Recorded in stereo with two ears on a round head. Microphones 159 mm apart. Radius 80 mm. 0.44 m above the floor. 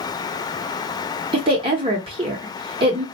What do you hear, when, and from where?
1.3 s a woman speaking: 30° right (ahead or behind), 1.0 m